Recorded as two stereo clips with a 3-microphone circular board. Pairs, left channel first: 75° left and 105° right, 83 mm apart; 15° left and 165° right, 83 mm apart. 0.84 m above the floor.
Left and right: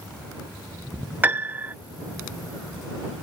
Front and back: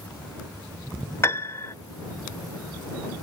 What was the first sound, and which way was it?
A piano, 40° right.